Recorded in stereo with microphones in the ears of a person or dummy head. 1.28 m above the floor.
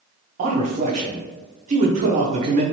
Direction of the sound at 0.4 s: 45° right (ahead or behind).